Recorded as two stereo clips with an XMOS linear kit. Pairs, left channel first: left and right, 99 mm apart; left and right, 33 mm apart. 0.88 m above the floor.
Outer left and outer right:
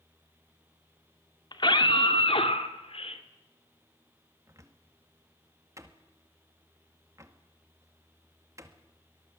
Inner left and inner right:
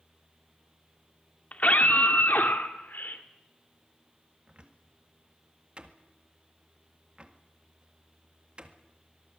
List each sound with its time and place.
1.5 s a scream: 50° left (ahead or behind), 2 m; by 3.2 s 80° left, 3 m
4.5 s a cupboard door: 30° right (ahead or behind), 1.7 m